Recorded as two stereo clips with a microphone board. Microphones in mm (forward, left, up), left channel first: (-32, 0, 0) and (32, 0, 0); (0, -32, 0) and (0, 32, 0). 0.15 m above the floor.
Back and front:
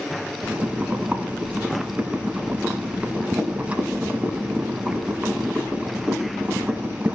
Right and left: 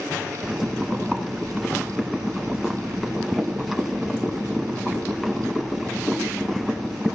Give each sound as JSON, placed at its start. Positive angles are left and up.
{"t": 0.4, "sound": "boiling", "azimuth_deg": 10, "distance_m": 1.2}